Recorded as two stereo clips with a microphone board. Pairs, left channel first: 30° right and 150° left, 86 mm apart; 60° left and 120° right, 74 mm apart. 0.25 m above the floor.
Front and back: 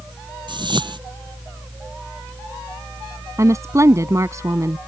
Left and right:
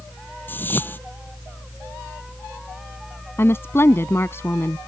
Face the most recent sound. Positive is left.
turn(degrees=105)